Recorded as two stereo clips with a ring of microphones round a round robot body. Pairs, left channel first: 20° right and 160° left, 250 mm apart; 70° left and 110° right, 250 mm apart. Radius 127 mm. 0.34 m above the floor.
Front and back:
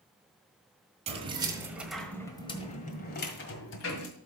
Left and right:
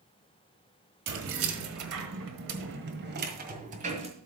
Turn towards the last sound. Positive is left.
turn(degrees=-50)